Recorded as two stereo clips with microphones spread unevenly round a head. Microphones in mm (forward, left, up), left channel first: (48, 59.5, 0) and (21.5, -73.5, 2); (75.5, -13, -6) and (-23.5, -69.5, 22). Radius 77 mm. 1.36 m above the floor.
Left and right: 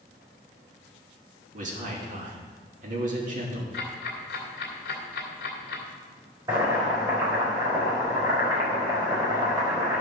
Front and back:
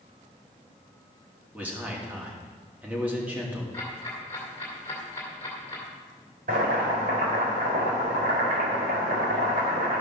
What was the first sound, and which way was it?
A man speaking, 70° right.